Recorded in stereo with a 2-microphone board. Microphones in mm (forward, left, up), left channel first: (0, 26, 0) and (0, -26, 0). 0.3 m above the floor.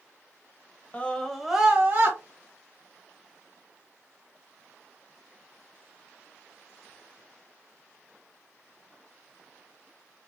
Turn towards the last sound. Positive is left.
turn(degrees=-40)  # may be behind; listen again after turning